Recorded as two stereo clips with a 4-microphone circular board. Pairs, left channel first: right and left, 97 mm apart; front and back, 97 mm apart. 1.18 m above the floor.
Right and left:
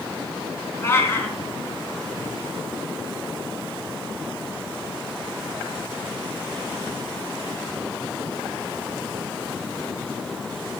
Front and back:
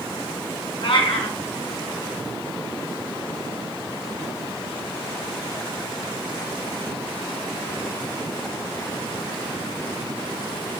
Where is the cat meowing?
25° right, 4 m.